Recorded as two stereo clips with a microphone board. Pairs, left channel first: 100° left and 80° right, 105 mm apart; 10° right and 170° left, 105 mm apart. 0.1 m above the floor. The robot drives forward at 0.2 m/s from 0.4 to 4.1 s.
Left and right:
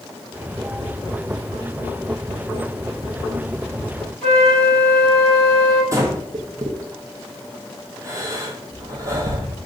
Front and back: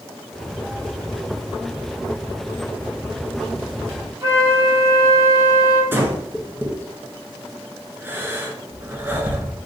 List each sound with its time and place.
4.2 s a flute: straight behind, 1.5 m
5.9 s breathing: 125° right, 0.6 m